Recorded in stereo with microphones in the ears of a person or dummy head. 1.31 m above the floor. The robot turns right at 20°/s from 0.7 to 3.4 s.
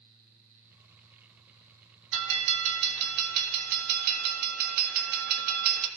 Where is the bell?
75° right (ahead or behind), 1.2 m; by 5.9 s 55° right (ahead or behind), 1.2 m.